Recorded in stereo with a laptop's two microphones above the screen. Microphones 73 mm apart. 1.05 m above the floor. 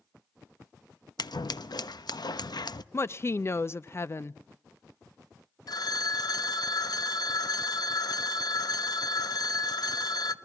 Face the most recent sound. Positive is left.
turn(degrees=60)  # may be behind; listen again after turning